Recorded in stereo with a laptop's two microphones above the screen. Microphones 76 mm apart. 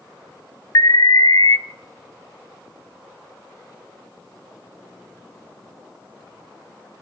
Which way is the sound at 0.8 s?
50° left (ahead or behind).